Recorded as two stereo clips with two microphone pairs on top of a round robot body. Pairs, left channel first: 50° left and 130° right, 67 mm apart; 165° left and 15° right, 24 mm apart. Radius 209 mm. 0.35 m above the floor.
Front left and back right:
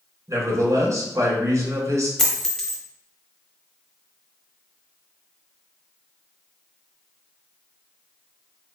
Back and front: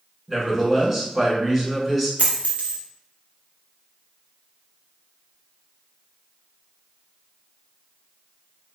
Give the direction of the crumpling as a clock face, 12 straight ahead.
I don't hear crumpling.